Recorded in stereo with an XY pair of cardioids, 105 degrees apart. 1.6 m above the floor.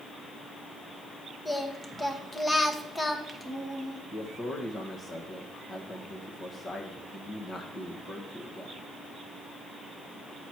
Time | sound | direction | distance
1.4 | singing | 15° left | 1.1 m
4.1 | a man speaking | 40° left | 1.3 m